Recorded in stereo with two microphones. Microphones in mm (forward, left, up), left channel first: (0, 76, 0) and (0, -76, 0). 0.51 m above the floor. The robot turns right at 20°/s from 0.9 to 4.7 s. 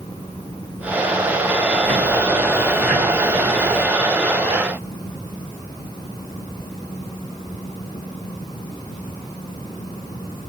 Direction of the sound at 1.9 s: 165° left.